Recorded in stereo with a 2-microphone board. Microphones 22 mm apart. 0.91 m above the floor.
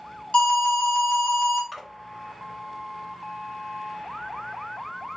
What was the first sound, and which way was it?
An alarm, 60° left (ahead or behind).